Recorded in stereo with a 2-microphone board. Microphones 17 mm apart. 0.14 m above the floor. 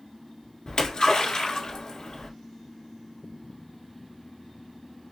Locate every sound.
0.7 s a splash: 55° left (ahead or behind), 1.8 m